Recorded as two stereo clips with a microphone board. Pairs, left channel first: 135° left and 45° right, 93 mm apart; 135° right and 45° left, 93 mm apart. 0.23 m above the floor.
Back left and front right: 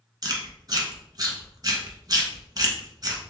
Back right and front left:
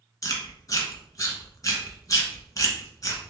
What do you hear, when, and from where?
0.2 s chewing: 85° right, 1.0 m